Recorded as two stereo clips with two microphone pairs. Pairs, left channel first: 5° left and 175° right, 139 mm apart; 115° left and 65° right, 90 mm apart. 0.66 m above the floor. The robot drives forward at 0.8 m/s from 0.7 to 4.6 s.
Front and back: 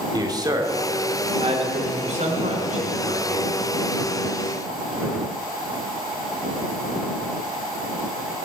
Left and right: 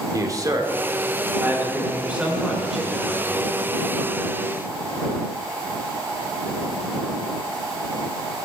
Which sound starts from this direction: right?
A man speaking, at 0.1 s.